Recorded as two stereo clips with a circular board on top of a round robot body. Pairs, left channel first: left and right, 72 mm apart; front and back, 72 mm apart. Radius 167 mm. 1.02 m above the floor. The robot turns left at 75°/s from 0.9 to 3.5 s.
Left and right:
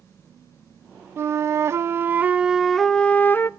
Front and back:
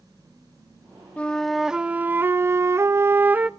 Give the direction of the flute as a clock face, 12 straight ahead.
2 o'clock.